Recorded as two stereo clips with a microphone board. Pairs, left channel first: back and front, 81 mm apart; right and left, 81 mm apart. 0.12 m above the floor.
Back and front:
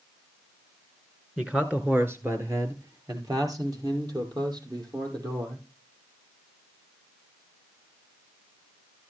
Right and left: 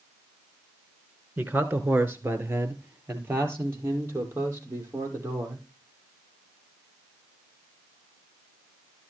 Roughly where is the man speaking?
Ahead left.